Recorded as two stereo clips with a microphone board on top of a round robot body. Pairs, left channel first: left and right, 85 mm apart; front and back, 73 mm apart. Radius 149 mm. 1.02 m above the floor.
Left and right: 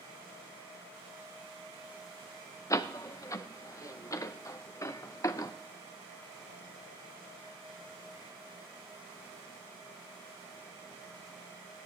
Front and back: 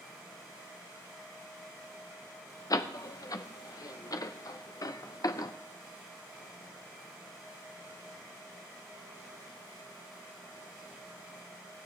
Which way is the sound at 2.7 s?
35° left.